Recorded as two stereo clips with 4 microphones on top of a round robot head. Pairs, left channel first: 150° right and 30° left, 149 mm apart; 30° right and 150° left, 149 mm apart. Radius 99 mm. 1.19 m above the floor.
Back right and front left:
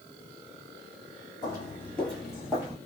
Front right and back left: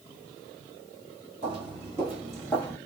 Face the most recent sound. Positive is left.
turn(degrees=-20)